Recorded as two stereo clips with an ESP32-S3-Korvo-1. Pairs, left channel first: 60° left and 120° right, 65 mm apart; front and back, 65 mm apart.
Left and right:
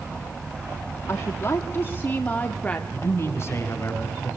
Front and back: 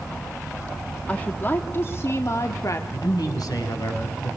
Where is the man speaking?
15° left, 5.5 m.